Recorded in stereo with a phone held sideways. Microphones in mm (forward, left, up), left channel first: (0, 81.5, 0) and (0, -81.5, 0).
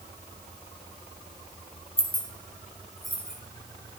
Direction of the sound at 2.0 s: 35° left (ahead or behind).